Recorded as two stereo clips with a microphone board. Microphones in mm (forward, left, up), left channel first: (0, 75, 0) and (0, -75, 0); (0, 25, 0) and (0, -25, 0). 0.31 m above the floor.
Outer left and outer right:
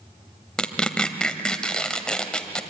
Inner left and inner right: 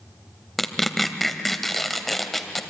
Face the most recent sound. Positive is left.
turn(degrees=5)  # may be behind; listen again after turning